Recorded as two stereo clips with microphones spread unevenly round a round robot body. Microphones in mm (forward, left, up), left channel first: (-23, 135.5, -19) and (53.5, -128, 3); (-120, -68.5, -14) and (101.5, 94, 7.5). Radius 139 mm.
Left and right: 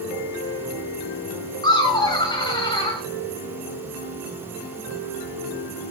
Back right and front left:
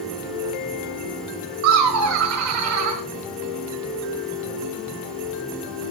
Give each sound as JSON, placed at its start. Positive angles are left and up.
{"t": 1.6, "sound": "laughter", "azimuth_deg": 40, "distance_m": 1.5}